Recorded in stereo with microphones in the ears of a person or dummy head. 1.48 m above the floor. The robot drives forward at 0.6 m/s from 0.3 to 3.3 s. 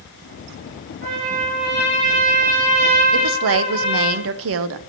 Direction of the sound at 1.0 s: 45° right (ahead or behind).